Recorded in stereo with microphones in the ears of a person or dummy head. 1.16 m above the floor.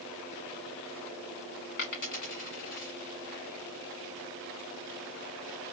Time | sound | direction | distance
1.8 | a dropped coin | 40° left (ahead or behind) | 1.3 m